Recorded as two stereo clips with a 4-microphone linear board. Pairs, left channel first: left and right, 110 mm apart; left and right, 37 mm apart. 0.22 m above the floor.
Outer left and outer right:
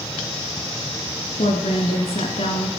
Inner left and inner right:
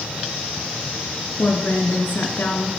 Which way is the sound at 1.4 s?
65° left (ahead or behind).